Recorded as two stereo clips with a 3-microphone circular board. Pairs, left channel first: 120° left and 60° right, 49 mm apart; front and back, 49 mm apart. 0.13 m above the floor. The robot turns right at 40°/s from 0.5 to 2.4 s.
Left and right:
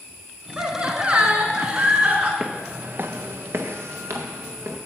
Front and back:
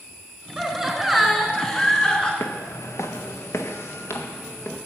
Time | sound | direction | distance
0.6 | laughter | 115° right | 1.4 m
2.4 | footsteps | 10° left | 0.6 m